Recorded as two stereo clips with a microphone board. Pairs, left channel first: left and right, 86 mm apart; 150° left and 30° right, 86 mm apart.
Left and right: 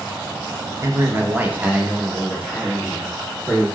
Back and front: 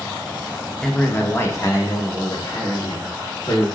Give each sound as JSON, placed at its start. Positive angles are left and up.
{"t": 0.8, "sound": "a man speaking", "azimuth_deg": -125, "distance_m": 0.6}